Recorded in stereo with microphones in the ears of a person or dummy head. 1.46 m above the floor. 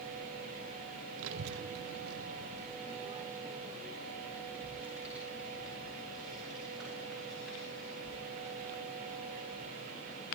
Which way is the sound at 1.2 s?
75° right (ahead or behind).